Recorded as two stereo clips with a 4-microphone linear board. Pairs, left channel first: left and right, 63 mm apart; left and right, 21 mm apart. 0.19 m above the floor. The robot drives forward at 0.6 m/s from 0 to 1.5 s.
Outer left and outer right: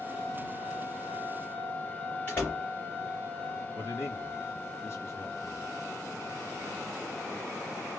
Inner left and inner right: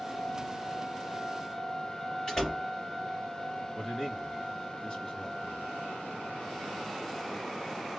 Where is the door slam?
30° left (ahead or behind), 2.5 m.